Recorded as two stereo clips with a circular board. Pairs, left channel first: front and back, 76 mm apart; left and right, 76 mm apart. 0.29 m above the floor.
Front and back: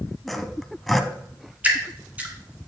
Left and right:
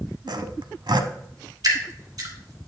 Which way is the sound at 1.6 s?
115° right.